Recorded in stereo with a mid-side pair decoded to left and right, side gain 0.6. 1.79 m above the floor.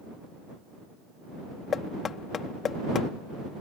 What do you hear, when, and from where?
1.7 s knocking: 40° left